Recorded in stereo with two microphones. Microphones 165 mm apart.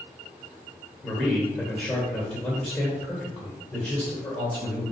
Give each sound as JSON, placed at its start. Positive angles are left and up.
{"t": 1.0, "sound": "a man speaking", "side_deg": 15, "distance_m": 2.0}